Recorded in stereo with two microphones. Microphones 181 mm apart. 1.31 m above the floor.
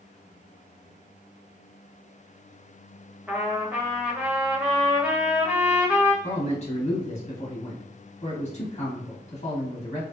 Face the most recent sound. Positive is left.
turn(degrees=35)  # may be behind; listen again after turning